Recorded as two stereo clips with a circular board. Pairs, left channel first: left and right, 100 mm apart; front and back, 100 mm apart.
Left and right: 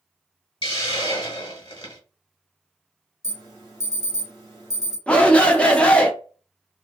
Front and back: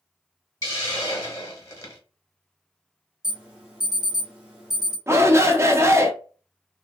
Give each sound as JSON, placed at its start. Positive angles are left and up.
{"t": 0.6, "sound": "a hiss", "azimuth_deg": 60, "distance_m": 1.1}
{"t": 3.2, "sound": "an alarm", "azimuth_deg": 105, "distance_m": 1.4}
{"t": 5.1, "sound": "a shout", "azimuth_deg": 155, "distance_m": 0.5}